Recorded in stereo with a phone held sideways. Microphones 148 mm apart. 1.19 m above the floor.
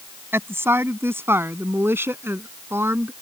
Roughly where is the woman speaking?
Centre.